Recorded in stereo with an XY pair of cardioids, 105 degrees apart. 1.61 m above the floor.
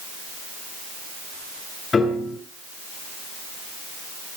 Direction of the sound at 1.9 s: 35° left.